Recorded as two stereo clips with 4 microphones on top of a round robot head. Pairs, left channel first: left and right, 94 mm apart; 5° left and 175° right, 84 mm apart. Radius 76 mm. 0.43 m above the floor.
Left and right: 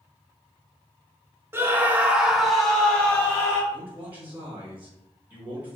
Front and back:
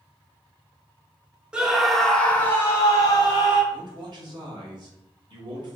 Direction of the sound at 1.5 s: 110° right.